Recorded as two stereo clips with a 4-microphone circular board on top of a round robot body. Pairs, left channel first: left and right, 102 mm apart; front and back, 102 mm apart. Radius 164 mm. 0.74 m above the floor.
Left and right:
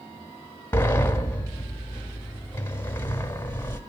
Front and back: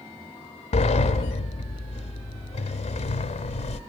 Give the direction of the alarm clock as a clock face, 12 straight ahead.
No alarm clock in this recording.